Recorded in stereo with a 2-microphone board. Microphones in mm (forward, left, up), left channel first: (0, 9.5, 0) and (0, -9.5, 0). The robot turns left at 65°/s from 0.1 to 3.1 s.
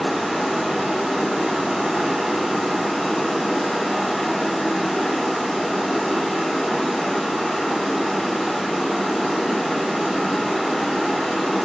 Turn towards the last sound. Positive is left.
turn(degrees=150)